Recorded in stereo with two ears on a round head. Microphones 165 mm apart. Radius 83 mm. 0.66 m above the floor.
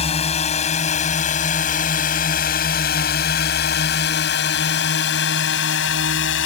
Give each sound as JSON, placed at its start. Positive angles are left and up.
{"t": 0.0, "sound": "a drone", "side_deg": 35}